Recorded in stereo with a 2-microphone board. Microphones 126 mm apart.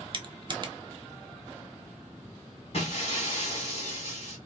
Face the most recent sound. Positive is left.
turn(degrees=55)  # may be behind; listen again after turning